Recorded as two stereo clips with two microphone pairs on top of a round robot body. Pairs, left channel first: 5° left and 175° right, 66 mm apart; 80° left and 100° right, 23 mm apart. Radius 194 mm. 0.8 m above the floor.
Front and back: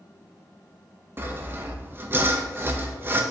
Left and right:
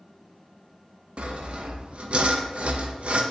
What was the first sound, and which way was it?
Sawing, 120° right.